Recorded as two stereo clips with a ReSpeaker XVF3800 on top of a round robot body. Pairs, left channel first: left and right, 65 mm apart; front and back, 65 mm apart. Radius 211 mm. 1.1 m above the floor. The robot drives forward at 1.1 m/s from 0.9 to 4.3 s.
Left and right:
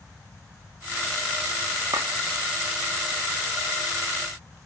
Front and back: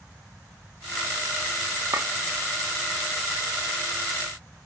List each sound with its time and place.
1.9 s a clink: 130° right, 1.7 m; by 2.1 s 135° right, 1.8 m